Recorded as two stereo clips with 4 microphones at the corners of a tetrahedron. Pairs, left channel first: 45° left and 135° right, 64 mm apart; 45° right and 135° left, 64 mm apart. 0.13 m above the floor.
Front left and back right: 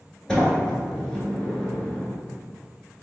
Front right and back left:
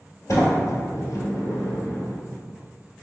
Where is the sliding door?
30° right, 1.1 m.